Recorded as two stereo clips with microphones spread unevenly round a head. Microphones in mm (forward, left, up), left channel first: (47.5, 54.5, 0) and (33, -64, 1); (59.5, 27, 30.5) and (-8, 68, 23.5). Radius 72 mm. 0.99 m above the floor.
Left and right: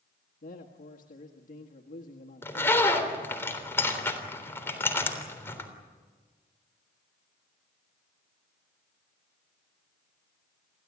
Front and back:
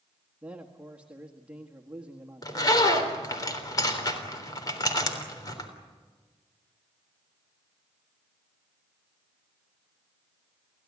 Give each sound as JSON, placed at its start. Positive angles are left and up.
{"t": 0.4, "sound": "a man speaking", "azimuth_deg": 75, "distance_m": 1.7}
{"t": 2.4, "sound": "a zipper", "azimuth_deg": 10, "distance_m": 3.5}